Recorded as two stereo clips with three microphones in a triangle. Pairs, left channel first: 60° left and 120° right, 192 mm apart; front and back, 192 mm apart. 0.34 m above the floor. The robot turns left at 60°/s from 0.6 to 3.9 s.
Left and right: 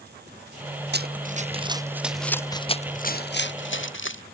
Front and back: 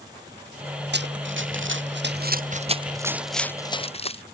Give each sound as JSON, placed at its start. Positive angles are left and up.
{"t": 0.9, "sound": "running footsteps", "azimuth_deg": -150}